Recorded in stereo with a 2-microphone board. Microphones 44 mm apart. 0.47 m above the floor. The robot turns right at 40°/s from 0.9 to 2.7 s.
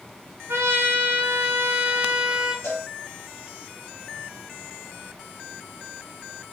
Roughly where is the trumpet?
Right.